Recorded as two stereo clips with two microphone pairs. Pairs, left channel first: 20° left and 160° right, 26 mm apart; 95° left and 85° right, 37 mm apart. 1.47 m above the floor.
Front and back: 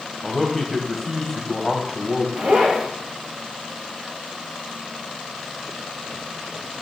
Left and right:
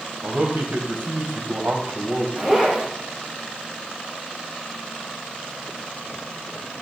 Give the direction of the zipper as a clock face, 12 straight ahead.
5 o'clock.